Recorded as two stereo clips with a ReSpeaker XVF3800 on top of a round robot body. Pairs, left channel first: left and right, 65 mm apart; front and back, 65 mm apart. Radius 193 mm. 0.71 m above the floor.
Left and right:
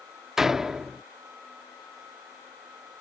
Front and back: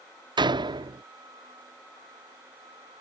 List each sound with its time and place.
0.4 s a door slam: 170° right